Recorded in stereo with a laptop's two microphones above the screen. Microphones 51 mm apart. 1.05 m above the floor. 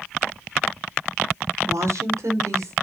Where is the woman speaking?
80° right, 2 m; by 2.7 s 75° right (ahead or behind), 3.5 m.